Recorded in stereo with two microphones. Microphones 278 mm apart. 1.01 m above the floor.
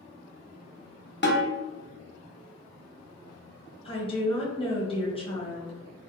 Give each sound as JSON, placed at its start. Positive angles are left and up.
{"t": 1.2, "sound": "a snare drum", "side_deg": 40, "distance_m": 0.7}
{"t": 3.9, "sound": "a woman speaking", "side_deg": 20, "distance_m": 1.0}